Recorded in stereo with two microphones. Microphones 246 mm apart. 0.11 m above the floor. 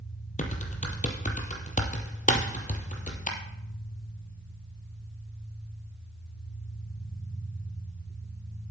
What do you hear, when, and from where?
0.4 s typing on a keyboard: 30° left (ahead or behind), 1.6 m
2.3 s a thud: 60° left (ahead or behind), 5 m